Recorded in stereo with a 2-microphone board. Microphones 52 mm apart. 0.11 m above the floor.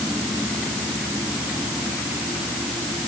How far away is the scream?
I don't hear a scream.